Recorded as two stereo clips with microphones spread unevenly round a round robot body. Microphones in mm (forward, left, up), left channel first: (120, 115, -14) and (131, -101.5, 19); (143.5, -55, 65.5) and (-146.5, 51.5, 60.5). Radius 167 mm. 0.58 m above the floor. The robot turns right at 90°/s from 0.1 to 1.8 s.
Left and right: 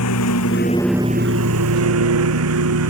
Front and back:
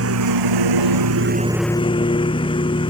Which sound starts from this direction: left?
A lawn mower, at 0.0 s.